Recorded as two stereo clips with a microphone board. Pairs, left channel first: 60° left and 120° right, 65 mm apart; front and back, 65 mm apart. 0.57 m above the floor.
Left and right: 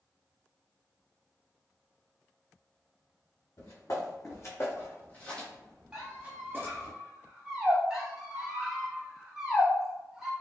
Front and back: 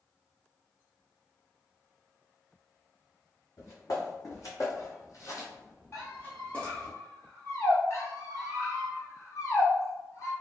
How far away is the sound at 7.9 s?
About 1.2 m.